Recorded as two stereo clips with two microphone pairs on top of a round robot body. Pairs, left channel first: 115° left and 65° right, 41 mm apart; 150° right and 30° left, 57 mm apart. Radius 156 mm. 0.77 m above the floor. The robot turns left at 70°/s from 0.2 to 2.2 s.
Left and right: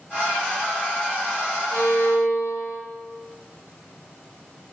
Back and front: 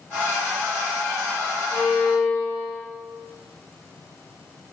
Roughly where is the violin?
Behind.